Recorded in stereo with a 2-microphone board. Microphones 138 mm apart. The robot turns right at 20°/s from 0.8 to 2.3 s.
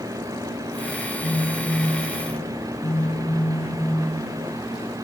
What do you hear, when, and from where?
1.2 s a phone buzzing: 45° left (ahead or behind), 0.7 m; by 4.1 s 55° left (ahead or behind), 0.7 m